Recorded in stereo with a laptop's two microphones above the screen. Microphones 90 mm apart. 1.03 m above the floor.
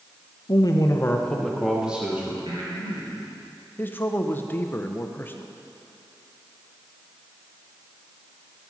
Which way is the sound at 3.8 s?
25° left (ahead or behind).